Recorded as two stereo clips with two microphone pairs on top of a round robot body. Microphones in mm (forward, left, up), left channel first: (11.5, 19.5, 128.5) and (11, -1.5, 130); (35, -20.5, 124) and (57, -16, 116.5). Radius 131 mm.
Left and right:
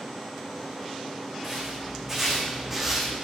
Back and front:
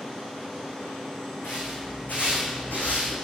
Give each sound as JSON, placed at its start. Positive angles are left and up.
{"t": 1.4, "sound": "footsteps", "azimuth_deg": -170, "distance_m": 2.5}